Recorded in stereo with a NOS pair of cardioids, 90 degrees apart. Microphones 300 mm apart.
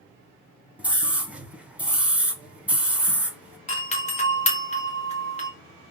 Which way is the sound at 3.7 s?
20° left.